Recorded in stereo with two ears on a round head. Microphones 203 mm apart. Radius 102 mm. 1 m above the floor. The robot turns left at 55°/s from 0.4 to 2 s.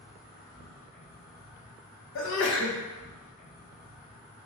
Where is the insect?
140° left, 1.7 m; by 4.5 s 50° left, 1.7 m.